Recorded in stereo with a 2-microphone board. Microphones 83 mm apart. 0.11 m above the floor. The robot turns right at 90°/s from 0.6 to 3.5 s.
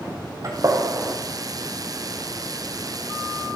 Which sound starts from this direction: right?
A gunshot, at 0.4 s.